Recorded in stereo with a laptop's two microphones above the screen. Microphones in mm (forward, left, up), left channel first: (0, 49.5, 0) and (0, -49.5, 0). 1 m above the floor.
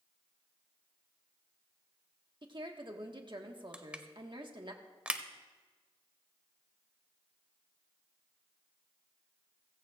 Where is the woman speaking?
55° right (ahead or behind), 1.6 m.